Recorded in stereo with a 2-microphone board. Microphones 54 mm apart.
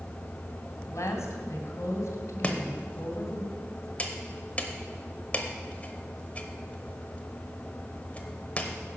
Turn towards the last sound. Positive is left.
turn(degrees=25)  # may be behind; listen again after turning